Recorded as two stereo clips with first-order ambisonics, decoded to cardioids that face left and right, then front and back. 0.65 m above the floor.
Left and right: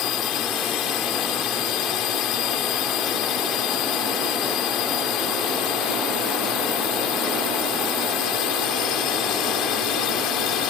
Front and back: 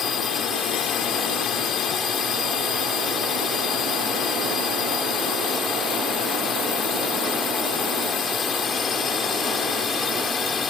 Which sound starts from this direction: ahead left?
A drone, at 0.0 s.